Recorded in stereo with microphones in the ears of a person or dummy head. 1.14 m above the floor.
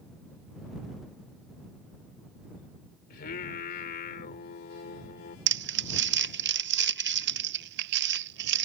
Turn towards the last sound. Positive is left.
turn(degrees=-60)  # may be behind; listen again after turning